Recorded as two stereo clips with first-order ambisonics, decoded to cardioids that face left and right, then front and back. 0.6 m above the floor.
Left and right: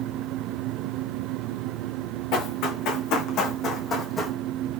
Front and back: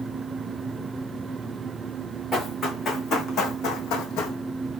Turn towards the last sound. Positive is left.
turn(degrees=10)